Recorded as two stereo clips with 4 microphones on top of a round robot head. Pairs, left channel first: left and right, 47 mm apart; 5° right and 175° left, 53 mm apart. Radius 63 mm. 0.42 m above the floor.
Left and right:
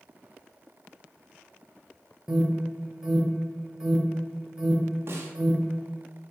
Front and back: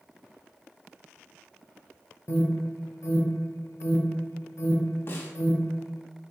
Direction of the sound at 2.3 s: 15° right.